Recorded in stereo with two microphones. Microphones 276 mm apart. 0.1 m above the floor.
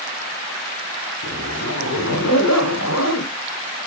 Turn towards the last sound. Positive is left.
turn(degrees=70)  # may be behind; listen again after turning